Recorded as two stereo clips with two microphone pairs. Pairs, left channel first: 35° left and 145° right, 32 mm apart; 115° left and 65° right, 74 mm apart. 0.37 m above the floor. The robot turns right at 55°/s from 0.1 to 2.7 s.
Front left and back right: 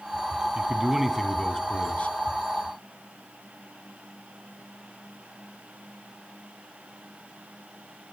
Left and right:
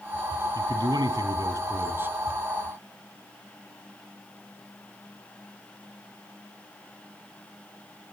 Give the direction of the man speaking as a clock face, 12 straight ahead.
3 o'clock.